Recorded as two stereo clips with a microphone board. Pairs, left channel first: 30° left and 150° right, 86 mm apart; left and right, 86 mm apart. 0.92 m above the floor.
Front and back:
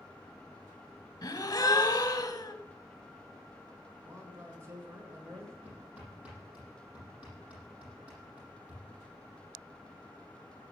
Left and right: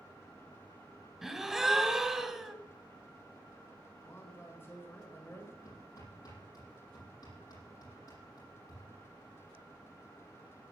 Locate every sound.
1.2 s a gasp: 5° right, 1.2 m
4.0 s a man speaking: 155° left, 3.5 m
5.7 s hammering: 135° left, 7.5 m